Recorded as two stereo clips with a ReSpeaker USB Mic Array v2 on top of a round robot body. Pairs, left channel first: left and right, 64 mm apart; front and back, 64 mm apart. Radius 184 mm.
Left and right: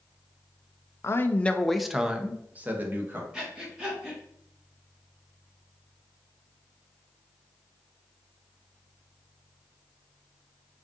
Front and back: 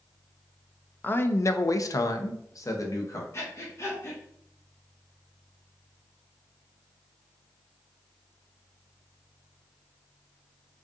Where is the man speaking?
55° left, 0.6 m; by 3.2 s 35° right, 1.2 m.